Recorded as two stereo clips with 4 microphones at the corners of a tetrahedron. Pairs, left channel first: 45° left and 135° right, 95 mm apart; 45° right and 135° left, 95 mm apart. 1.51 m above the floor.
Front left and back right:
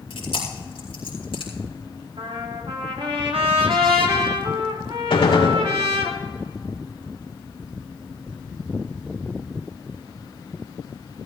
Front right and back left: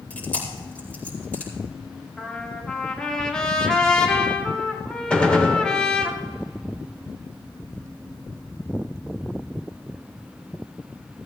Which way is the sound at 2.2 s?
125° right.